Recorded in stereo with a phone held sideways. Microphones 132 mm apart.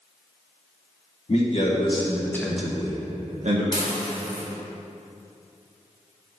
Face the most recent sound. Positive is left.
turn(degrees=35)  # may be behind; listen again after turning